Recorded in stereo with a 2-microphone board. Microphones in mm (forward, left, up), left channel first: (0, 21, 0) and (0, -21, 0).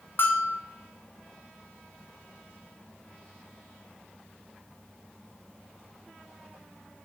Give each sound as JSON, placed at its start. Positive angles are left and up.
{"t": 0.2, "sound": "a bell", "side_deg": 60, "distance_m": 1.0}